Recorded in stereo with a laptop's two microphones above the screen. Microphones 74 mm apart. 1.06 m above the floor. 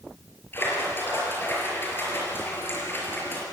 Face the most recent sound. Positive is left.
turn(degrees=30)  # may be behind; listen again after turning